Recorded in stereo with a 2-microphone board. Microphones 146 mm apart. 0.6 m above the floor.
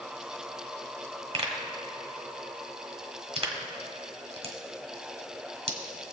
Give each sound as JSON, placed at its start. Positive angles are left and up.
{"t": 1.3, "sound": "a pop", "side_deg": -40, "distance_m": 1.5}